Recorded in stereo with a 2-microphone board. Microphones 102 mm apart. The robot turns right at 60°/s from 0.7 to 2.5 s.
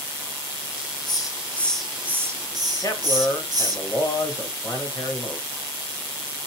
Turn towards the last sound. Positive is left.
turn(degrees=35)  # may be behind; listen again after turning